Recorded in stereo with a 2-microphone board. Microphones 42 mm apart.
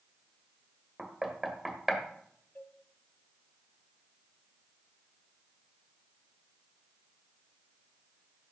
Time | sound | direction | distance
1.0 | knocking | 10° right (ahead or behind) | 1.6 m
2.5 | a cowbell | 50° left (ahead or behind) | 1.7 m